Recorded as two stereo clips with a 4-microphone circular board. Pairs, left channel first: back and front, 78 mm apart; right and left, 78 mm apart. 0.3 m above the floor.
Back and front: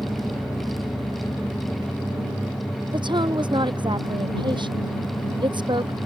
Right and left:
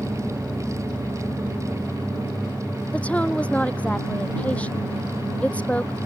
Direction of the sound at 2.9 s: 20° right.